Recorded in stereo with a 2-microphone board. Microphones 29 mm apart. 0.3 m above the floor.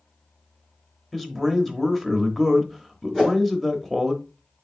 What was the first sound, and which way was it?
A man speaking, 5° left (ahead or behind).